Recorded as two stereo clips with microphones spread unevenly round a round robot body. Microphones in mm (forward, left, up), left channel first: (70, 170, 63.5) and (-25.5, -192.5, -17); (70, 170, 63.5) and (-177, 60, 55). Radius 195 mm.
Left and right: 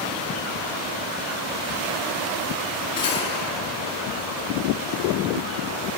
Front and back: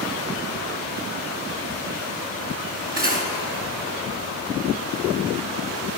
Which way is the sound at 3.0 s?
150° left.